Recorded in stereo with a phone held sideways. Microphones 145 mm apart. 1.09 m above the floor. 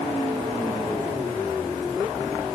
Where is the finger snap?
No finger snap in this recording.